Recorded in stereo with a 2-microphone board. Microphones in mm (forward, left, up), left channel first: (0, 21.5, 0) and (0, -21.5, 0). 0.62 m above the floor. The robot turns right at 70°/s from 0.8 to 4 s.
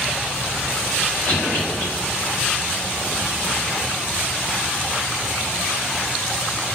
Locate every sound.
1.3 s a cough: 50° left (ahead or behind), 1.7 m; by 1.9 s 60° left (ahead or behind), 1.7 m